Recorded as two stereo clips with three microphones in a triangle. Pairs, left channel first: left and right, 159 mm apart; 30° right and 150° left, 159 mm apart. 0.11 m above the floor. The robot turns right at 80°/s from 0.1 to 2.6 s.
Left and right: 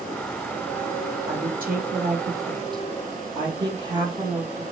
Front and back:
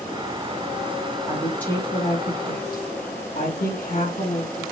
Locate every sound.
1.2 s a woman speaking: 140° right, 3.5 m; by 4.6 s 30° right, 3.5 m